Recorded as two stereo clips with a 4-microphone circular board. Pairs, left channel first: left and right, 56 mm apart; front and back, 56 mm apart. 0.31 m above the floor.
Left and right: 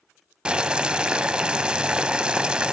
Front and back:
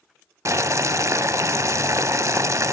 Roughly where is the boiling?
Behind.